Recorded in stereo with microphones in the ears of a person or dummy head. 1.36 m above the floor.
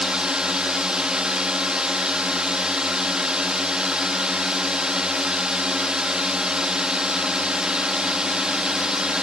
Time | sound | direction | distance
0.0 | a drone | centre (ahead or behind) | ?